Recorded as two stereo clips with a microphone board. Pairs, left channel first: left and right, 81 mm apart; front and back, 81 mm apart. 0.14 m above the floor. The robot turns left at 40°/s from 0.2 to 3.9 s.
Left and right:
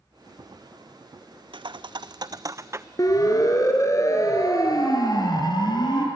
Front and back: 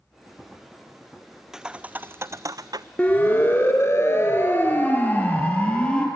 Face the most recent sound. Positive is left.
turn(degrees=75)